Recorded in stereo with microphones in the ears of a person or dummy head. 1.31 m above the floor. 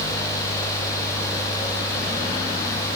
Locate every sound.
Only background noise.